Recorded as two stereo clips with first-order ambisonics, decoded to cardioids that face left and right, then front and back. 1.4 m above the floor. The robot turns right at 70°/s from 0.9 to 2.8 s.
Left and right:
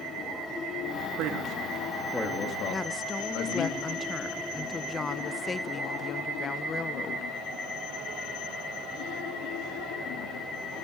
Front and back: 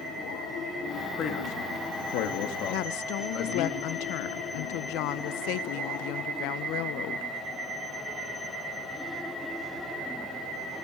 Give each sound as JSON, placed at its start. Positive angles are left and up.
{"t": 1.2, "sound": "a man speaking", "azimuth_deg": -60, "distance_m": 3.0}
{"t": 2.7, "sound": "a woman speaking", "azimuth_deg": 10, "distance_m": 1.0}